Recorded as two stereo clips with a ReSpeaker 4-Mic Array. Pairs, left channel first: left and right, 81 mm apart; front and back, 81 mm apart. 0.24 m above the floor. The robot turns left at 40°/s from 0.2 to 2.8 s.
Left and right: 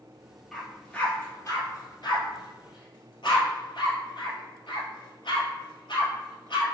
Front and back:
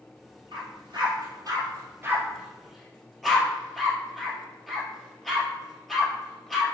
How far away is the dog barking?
About 1.6 m.